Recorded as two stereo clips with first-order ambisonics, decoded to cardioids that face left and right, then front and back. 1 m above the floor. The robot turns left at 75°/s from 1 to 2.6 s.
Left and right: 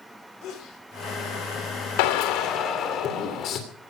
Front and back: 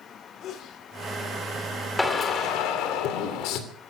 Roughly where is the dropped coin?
No dropped coin in this recording.